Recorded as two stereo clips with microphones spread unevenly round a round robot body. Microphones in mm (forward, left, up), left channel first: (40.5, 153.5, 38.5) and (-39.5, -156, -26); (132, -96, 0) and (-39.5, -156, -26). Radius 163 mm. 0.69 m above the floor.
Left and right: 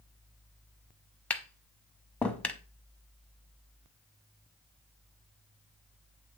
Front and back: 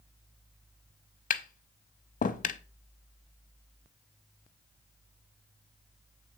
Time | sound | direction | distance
1.3 | tapping | 20° right | 0.8 m